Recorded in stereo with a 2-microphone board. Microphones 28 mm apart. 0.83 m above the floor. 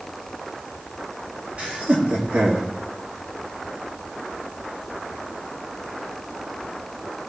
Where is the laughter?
50° right (ahead or behind), 1.8 m; by 2.7 s 65° right (ahead or behind), 1.9 m.